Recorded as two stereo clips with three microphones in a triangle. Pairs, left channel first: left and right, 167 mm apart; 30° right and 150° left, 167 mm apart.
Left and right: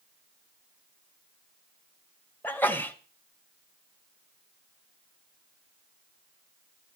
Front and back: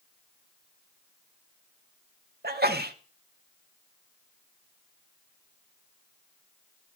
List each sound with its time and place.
2.4 s a sneeze: 170° left, 1.0 m